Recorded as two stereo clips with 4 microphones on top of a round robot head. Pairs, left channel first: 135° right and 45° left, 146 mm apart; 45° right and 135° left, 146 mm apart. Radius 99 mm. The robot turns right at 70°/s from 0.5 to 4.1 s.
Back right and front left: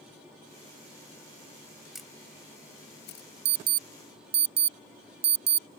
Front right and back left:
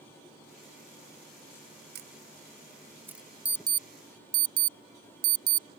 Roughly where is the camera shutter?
Behind left.